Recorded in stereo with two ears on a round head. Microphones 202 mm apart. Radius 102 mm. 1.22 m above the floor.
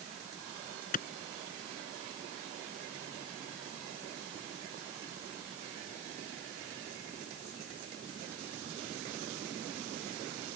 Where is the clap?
40° left (ahead or behind).